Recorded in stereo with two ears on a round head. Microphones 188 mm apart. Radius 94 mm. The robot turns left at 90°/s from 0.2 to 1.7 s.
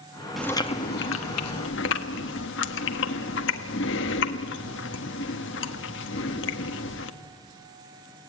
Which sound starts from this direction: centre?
Chewing, at 0.4 s.